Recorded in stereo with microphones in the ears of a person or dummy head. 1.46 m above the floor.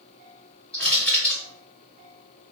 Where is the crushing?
5° left (ahead or behind), 1.0 m.